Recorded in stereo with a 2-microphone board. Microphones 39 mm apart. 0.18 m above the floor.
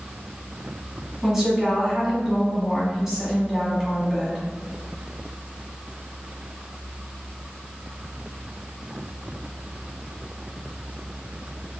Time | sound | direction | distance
1.2 | a woman speaking | 15° right (ahead or behind) | 1.3 m